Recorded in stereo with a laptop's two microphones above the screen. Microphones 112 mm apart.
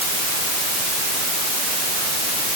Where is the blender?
No blender in this recording.